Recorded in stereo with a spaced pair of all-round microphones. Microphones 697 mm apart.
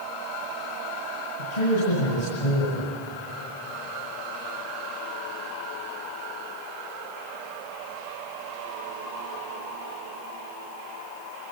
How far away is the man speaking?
About 8 m.